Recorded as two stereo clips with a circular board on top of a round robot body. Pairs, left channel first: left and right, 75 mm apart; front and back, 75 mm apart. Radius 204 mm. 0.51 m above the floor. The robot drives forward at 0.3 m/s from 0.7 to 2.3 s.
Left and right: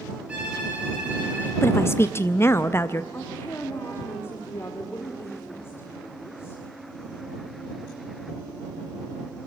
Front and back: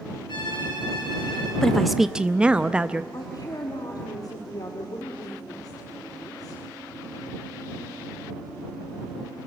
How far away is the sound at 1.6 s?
About 0.7 m.